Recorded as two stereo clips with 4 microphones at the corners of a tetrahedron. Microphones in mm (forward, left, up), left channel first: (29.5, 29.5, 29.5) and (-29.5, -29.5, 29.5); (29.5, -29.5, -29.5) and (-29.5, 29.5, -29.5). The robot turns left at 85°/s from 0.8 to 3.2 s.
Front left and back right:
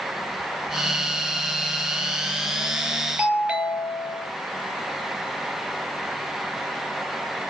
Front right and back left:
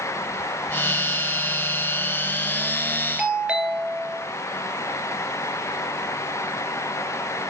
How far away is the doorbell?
About 1.9 m.